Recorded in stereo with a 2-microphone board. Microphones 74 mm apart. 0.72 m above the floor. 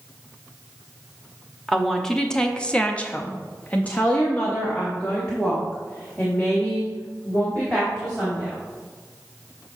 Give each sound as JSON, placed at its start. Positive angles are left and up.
{"t": 1.7, "sound": "a woman speaking", "side_deg": 5, "distance_m": 1.1}